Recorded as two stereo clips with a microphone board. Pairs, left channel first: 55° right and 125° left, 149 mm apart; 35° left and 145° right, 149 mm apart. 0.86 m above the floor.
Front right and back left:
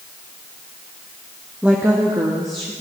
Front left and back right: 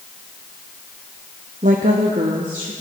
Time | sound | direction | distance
1.6 | a woman speaking | 150° right | 0.8 m